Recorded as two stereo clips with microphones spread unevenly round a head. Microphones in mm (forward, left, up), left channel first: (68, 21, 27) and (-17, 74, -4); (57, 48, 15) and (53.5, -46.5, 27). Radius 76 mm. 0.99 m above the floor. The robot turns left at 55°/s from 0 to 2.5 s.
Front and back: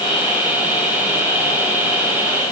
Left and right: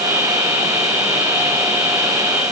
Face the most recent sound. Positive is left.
No sound to turn to.